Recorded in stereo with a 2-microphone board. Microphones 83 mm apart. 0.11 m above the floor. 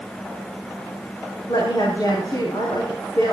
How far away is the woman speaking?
About 5 m.